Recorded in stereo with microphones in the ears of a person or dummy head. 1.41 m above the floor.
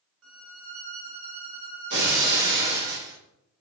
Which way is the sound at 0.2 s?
85° right.